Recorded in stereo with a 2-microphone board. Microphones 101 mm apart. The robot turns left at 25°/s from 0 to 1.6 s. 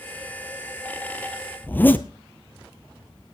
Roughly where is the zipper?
Centre.